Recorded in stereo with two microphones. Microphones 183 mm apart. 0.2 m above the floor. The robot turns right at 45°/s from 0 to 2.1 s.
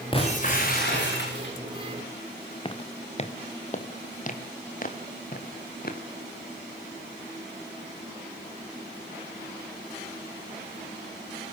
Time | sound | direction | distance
0.1 | breaking glass | 30° left | 8 m
2.6 | footsteps | 30° left (ahead or behind) | 1.8 m